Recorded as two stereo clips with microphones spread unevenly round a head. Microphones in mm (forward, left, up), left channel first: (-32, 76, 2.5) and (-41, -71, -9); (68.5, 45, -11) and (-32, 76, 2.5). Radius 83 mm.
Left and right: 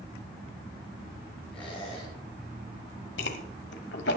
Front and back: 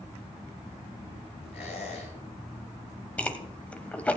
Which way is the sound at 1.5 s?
Straight ahead.